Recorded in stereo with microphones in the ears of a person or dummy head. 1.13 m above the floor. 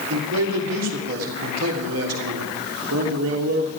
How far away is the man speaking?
About 3 m.